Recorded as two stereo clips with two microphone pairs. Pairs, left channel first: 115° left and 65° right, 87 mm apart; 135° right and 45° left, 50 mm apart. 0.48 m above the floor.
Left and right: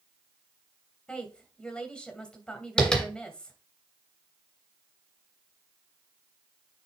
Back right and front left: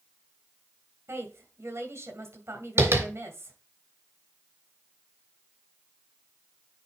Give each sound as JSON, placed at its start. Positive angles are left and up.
{"t": 1.1, "sound": "a woman speaking", "azimuth_deg": 35, "distance_m": 2.5}
{"t": 2.8, "sound": "tapping", "azimuth_deg": 35, "distance_m": 2.5}